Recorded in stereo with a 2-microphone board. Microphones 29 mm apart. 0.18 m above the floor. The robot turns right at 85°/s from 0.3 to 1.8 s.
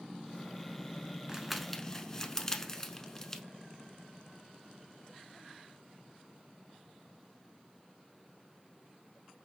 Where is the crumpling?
20° right (ahead or behind), 0.8 m; by 3.4 s 20° left (ahead or behind), 0.8 m.